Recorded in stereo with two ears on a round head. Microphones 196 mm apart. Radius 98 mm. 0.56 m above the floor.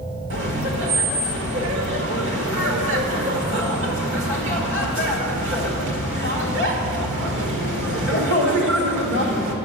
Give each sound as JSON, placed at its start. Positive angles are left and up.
{"t": 0.3, "sound": "laughter", "side_deg": -60, "distance_m": 1.7}